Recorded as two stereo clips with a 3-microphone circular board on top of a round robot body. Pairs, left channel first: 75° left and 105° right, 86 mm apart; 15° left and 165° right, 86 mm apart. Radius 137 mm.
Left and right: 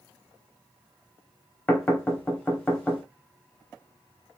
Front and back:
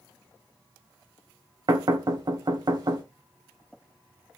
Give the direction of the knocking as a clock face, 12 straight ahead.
7 o'clock.